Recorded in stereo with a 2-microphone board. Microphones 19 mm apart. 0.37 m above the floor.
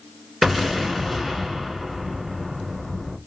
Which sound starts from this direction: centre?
An explosion, at 0.4 s.